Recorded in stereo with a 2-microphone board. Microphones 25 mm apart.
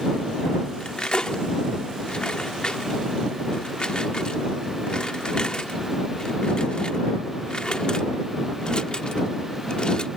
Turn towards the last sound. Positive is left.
turn(degrees=35)  # may be behind; listen again after turning